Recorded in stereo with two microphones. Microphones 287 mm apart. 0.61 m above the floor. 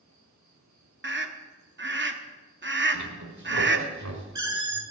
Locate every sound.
0.0 s an insect: 80° right, 3 m
1.0 s a scream: 40° right (ahead or behind), 0.8 m
2.9 s a squeak: 75° right (ahead or behind), 1.4 m